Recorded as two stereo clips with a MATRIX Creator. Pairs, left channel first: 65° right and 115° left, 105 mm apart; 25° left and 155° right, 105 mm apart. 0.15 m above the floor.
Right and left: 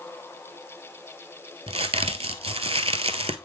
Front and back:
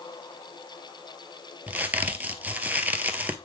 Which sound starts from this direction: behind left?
A crack, at 1.7 s.